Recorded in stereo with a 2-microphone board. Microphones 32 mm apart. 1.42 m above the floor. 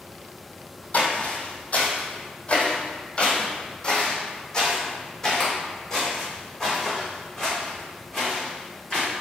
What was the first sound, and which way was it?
Footsteps, 50° left (ahead or behind).